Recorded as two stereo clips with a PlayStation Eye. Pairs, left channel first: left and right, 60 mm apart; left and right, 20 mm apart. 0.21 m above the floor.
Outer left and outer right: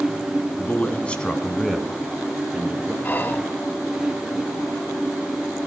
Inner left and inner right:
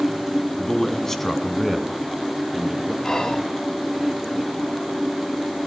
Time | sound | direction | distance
0.6 | a man speaking | 35° left (ahead or behind) | 1.8 m
3.0 | whispering | 30° left (ahead or behind) | 1.2 m